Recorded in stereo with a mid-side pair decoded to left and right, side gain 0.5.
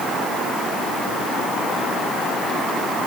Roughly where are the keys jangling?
No keys jangling in this recording.